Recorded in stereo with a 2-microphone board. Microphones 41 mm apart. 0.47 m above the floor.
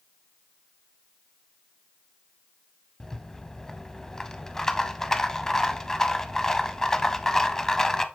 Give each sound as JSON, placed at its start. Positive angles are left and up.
{"t": 3.0, "sound": "a rattle", "side_deg": 15, "distance_m": 0.5}